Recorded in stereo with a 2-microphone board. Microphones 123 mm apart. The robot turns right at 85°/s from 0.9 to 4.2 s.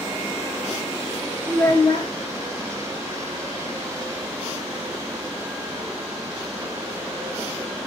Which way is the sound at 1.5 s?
10° left.